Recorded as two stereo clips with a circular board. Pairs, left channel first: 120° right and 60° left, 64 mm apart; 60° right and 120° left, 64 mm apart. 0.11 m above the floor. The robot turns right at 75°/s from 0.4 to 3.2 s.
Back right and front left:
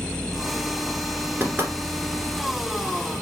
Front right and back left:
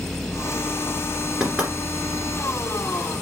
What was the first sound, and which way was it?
Knocking, 50° left.